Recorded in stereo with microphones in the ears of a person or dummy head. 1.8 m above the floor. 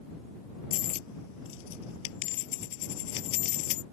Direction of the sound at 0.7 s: 70° left (ahead or behind).